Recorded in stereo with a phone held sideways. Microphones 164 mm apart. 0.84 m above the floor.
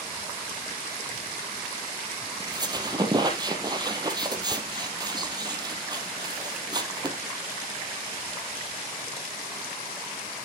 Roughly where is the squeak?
Right.